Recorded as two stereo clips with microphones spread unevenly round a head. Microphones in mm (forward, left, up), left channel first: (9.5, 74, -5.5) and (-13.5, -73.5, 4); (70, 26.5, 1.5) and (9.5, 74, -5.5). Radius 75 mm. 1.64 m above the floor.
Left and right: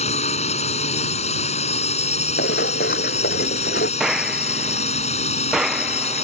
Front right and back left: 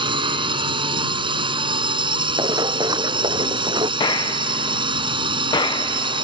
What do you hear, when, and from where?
0.0 s a drone: 130° left
2.4 s running footsteps: 110° left; by 3.9 s 115° left
4.0 s a gunshot: 10° right